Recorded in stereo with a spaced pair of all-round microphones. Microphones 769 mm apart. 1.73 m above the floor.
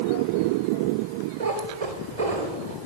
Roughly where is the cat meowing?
Right.